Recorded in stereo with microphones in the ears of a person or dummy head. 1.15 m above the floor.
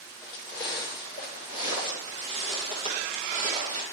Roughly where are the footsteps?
Centre.